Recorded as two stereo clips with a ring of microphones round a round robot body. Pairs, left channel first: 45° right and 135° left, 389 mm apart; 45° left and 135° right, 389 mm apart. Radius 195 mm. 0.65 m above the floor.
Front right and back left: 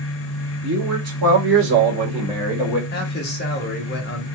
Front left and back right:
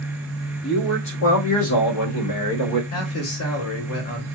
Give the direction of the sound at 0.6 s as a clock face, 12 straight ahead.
9 o'clock.